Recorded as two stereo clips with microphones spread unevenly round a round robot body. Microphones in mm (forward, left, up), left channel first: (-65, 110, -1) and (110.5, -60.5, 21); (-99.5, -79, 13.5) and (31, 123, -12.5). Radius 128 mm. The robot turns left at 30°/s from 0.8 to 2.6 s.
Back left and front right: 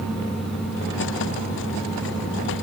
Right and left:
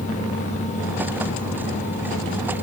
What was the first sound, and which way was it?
Only background noise.